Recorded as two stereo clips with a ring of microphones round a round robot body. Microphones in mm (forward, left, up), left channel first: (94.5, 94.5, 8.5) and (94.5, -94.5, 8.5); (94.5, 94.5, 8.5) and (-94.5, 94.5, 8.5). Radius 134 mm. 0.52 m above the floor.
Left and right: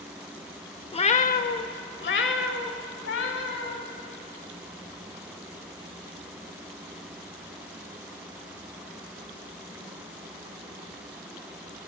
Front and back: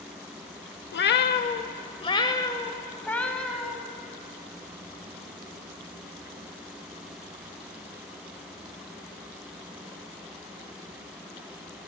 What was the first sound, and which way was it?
A cat meowing, 25° left.